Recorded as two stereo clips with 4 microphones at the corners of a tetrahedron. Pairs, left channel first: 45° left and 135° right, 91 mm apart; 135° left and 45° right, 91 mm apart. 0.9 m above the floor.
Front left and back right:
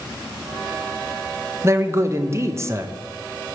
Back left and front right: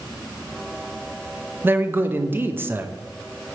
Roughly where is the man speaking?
Right.